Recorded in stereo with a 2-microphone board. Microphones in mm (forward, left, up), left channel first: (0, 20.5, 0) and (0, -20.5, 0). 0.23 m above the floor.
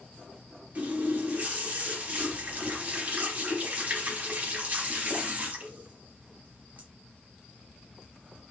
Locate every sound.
0.8 s a running tap: 35° right (ahead or behind), 1.0 m